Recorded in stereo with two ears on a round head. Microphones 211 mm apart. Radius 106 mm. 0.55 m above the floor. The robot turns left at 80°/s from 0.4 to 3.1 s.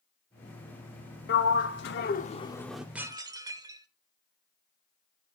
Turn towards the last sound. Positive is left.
turn(degrees=-15)  # may be behind; listen again after turning